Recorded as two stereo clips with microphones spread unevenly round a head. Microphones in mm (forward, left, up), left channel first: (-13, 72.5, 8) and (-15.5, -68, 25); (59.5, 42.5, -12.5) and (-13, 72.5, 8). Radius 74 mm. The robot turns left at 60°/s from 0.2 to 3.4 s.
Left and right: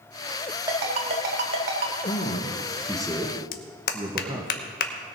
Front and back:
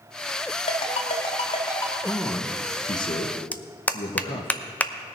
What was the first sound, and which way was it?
A ringtone, 25° right.